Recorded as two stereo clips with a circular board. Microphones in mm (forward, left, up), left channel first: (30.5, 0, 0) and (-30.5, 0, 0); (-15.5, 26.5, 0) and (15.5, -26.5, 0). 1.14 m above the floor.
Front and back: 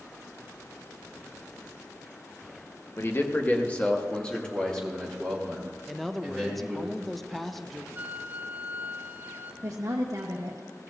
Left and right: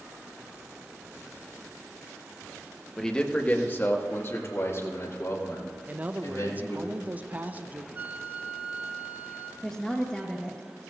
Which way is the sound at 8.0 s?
120° right.